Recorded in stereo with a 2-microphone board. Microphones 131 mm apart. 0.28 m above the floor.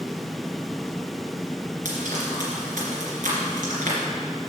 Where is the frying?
75° right (ahead or behind), 2.5 m.